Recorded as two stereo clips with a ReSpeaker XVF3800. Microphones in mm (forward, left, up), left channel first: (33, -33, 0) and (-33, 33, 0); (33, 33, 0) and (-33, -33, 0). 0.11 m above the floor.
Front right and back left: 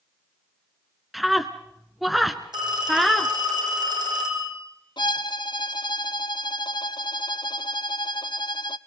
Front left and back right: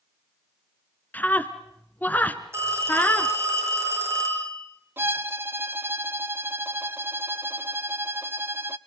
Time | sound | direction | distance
1.1 | a scream | 45° left | 1.1 m
2.5 | a phone ringing | 165° left | 5 m
5.0 | a violin | 70° right | 0.7 m